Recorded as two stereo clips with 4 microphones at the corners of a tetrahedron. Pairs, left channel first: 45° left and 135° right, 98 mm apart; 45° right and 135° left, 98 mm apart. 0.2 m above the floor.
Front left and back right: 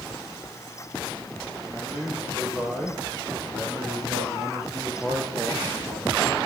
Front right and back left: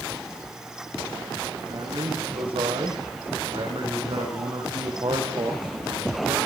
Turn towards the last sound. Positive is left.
turn(degrees=175)